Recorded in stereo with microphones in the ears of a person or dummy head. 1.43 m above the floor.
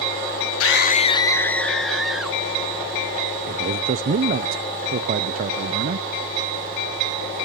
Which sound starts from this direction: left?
A scream, at 0.6 s.